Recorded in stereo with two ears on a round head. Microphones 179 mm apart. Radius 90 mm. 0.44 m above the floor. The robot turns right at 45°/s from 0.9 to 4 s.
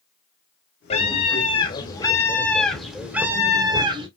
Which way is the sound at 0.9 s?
95° left.